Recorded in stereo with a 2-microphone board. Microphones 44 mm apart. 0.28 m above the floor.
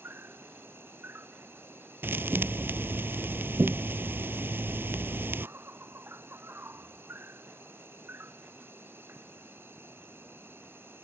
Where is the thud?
60° right (ahead or behind).